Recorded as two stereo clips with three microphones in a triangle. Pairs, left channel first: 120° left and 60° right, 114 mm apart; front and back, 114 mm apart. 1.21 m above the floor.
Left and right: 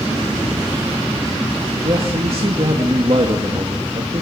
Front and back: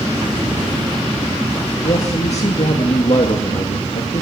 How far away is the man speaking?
About 2 m.